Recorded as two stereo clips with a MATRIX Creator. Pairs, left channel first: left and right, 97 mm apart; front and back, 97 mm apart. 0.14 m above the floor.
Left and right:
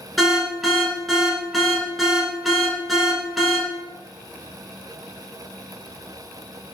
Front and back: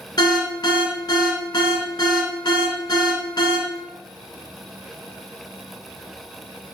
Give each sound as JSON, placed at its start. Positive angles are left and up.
{"t": 0.2, "sound": "an alarm", "azimuth_deg": 0, "distance_m": 1.0}